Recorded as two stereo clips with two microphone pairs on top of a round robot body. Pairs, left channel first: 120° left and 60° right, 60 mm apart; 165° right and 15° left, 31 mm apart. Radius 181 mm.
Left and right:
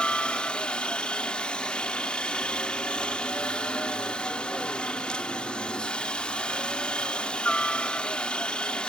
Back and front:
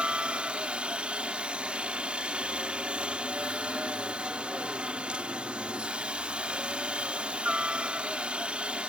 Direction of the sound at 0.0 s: 60° left.